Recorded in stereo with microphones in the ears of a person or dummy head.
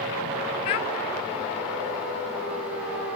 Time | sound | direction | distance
0.7 | a child speaking | 30° left (ahead or behind) | 0.6 m